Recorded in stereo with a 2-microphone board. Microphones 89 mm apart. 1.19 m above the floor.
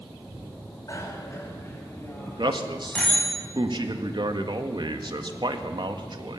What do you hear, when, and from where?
0.9 s a bicycle bell: 40° left (ahead or behind), 4.5 m; by 3.3 s 15° left (ahead or behind), 5.5 m
2.3 s a man speaking: 55° right (ahead or behind), 1.8 m